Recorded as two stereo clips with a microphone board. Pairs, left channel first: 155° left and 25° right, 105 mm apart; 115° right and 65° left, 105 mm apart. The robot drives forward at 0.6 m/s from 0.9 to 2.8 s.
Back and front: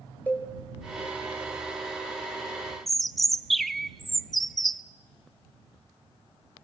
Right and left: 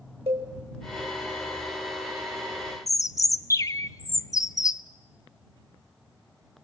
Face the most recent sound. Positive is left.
turn(degrees=-115)